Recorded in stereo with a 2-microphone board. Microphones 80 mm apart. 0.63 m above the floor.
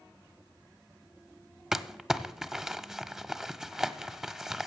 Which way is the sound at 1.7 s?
5° right (ahead or behind).